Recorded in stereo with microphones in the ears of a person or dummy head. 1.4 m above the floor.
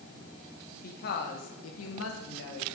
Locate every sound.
0.8 s a woman speaking: 50° left (ahead or behind), 1.4 m; by 2.8 s 60° left (ahead or behind), 1.3 m